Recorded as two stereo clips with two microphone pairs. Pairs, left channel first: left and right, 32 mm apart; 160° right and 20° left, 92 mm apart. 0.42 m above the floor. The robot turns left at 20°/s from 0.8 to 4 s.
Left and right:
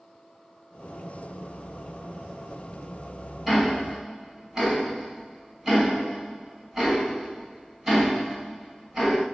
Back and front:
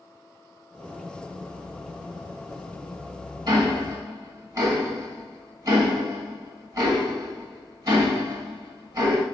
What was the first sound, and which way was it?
Ticking, 20° right.